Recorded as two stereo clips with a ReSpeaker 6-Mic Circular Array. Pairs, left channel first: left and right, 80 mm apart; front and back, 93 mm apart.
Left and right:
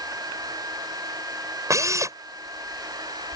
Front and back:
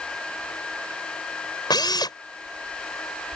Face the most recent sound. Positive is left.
turn(degrees=-40)